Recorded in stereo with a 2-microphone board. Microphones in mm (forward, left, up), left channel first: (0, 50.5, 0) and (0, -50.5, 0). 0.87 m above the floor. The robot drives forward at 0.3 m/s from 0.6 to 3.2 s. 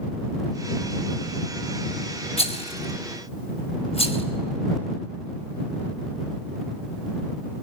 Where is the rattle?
85° left, 2.5 m; by 4.2 s 80° left, 2.5 m.